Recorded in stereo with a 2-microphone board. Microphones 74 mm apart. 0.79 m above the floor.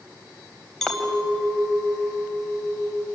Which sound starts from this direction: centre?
A clink, at 0.8 s.